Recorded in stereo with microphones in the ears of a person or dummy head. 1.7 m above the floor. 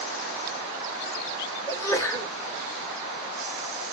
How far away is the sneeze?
About 1.5 m.